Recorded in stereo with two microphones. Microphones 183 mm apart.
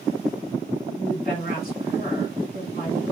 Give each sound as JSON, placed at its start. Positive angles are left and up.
{"t": 1.0, "sound": "a woman speaking", "side_deg": 45, "distance_m": 2.0}